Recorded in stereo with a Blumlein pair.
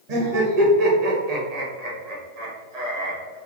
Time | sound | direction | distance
0.1 | laughter | 50° right | 1.9 m